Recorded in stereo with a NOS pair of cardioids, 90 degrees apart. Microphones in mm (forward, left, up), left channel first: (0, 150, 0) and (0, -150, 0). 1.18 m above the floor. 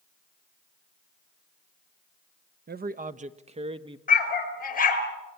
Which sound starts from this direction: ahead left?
A dog barking, at 4.1 s.